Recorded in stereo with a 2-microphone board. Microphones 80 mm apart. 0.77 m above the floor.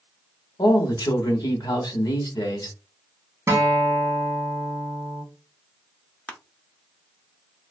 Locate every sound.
0.6 s a man speaking: 55° left (ahead or behind), 1.4 m
3.5 s a guitar: 30° right (ahead or behind), 1.0 m
6.3 s crushing: 15° left (ahead or behind), 0.6 m